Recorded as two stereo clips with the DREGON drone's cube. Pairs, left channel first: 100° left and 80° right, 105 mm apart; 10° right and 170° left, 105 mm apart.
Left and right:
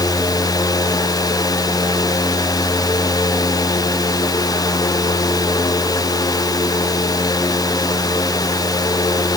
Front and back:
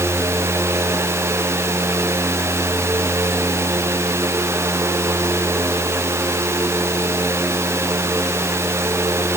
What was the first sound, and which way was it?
Only background noise.